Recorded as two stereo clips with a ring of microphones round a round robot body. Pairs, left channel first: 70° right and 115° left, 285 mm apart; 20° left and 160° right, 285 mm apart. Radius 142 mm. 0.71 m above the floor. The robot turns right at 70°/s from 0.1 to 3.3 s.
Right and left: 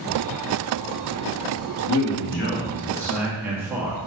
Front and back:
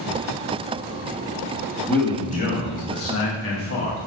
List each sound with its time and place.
1.9 s a man speaking: 65° right, 1.0 m; by 4.0 s 35° left, 1.0 m